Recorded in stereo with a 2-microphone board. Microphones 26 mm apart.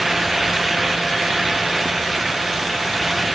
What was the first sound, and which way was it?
Only background noise.